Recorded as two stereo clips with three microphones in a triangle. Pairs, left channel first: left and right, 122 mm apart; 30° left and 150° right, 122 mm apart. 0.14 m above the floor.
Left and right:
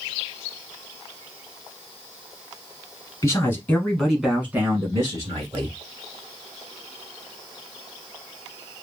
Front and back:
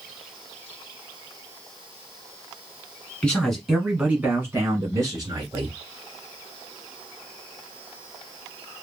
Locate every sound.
3.2 s a man speaking: 95° left, 1.4 m; by 5.8 s 120° right, 1.9 m